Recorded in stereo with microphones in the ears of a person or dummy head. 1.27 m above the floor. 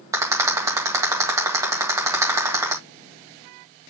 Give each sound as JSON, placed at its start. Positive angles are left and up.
{"t": 0.1, "sound": "a rattle", "side_deg": -15, "distance_m": 1.8}